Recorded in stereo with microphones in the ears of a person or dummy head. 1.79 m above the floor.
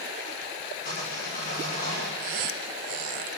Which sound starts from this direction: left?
Sawing, at 0.8 s.